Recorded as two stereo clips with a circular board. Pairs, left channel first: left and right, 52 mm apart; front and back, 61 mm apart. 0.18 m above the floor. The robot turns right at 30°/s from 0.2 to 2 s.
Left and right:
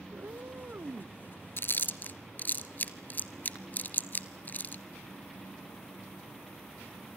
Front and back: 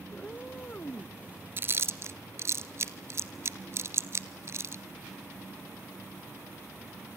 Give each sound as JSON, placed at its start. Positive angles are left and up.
{"t": 0.1, "sound": "a cat meowing", "azimuth_deg": -75, "distance_m": 0.5}
{"t": 1.6, "sound": "chewing", "azimuth_deg": 130, "distance_m": 0.9}